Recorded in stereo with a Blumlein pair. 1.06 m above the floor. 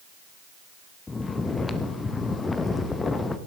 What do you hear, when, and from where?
1.1 s snoring: 10° left, 0.7 m